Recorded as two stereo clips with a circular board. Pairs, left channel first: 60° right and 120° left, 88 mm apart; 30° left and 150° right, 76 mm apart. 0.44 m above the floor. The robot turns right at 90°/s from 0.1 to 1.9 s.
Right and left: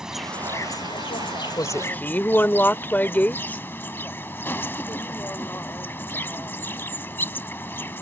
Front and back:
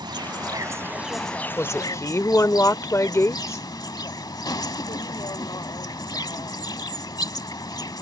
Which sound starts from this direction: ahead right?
A woman speaking, at 1.6 s.